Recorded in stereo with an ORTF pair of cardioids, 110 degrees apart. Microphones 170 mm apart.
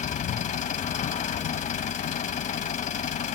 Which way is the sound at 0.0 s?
45° left.